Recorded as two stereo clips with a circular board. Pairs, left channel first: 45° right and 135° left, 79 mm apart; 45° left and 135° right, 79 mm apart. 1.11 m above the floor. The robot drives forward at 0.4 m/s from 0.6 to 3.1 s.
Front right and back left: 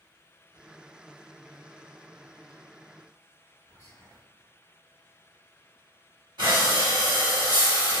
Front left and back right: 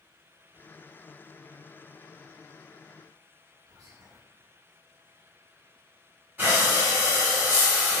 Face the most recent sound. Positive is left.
turn(degrees=160)